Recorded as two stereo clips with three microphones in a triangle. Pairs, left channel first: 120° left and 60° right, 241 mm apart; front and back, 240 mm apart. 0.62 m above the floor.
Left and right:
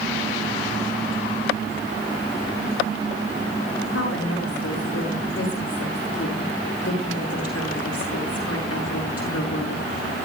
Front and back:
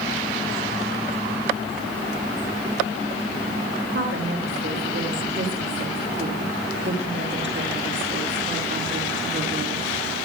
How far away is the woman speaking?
About 8 m.